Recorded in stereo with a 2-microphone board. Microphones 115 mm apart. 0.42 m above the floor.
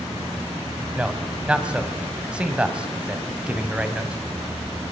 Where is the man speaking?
10° right (ahead or behind), 2 m.